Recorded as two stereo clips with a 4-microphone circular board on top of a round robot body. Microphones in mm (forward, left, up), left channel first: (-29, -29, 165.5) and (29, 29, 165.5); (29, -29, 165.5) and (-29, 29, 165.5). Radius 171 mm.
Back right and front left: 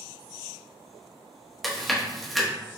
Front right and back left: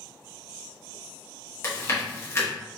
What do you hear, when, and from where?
1.6 s chewing: 45° right, 1.4 m